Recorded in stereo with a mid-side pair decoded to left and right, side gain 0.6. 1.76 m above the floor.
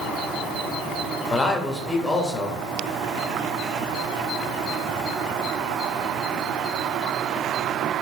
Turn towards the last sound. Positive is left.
turn(degrees=15)